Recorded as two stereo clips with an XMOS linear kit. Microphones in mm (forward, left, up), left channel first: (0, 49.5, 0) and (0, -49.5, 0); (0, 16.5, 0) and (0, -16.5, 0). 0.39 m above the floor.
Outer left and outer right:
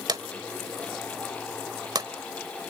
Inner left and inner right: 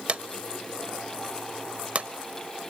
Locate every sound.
0.1 s a drawer: 40° right (ahead or behind), 1.0 m